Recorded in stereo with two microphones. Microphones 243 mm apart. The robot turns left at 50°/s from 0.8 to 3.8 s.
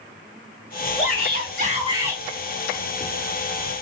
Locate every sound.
1.0 s a shout: 110° right, 3 m; by 2.2 s 170° right, 3 m